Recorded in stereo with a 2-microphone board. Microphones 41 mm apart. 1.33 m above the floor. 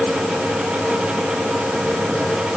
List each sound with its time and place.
Only background noise.